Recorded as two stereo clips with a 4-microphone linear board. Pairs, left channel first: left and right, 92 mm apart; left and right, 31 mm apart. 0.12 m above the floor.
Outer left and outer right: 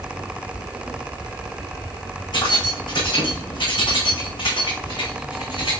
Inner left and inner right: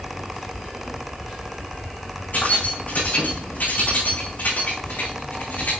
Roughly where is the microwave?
I don't hear a microwave.